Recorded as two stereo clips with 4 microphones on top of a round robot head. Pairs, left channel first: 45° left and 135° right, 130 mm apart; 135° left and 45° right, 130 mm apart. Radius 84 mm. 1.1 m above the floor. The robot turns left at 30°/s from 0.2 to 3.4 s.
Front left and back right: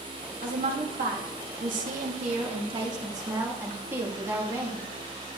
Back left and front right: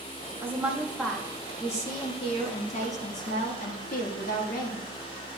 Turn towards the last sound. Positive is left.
turn(degrees=150)